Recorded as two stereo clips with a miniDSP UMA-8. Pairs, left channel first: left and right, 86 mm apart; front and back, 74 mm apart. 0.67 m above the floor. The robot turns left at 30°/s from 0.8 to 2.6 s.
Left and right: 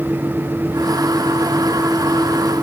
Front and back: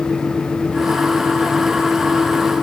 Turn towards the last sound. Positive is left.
No sound to turn to.